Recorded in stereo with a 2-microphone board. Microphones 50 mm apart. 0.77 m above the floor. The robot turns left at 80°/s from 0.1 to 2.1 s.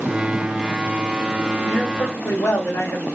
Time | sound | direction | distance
1.6 | a man speaking | 130° left | 1.9 m